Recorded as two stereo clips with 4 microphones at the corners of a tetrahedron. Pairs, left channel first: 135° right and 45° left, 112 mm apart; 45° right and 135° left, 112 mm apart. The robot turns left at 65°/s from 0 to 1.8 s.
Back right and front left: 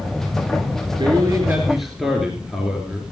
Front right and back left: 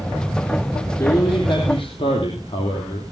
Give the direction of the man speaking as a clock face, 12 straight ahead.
12 o'clock.